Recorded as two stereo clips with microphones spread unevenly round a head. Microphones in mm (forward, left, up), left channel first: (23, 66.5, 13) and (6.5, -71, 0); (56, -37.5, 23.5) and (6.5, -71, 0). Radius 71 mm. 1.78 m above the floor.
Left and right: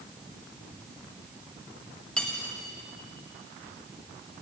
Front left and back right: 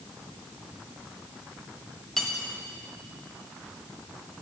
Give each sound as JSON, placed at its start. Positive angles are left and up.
{"t": 2.2, "sound": "cutlery clinking", "azimuth_deg": 15, "distance_m": 1.2}